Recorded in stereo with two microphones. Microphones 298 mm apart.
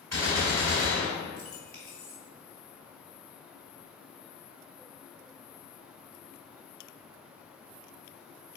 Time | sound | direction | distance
0.1 | a gunshot | 60° right (ahead or behind) | 3 m